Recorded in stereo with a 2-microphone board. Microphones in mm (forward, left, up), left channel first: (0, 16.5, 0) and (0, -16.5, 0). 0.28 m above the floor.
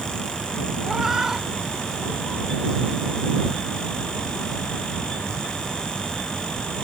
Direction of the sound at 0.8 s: 10° right (ahead or behind).